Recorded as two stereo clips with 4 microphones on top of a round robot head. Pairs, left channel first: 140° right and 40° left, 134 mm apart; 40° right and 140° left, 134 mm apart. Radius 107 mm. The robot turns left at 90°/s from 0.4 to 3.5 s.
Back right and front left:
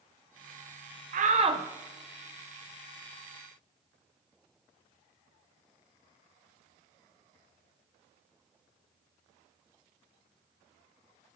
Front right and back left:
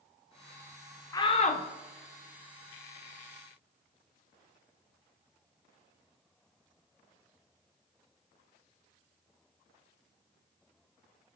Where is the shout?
25° left, 0.5 m; by 1.6 s 20° right, 0.5 m.